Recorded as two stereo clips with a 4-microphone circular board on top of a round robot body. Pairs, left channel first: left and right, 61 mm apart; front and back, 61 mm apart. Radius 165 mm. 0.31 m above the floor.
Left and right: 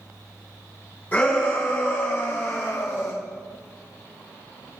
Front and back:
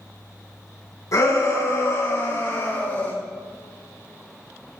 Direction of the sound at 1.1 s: 30° left.